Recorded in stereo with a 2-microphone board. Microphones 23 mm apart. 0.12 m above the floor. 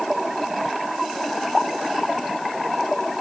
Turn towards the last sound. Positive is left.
No sound to turn to.